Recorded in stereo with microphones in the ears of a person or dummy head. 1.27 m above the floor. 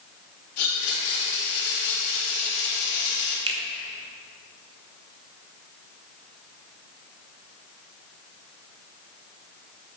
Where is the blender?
65° left (ahead or behind), 2 m.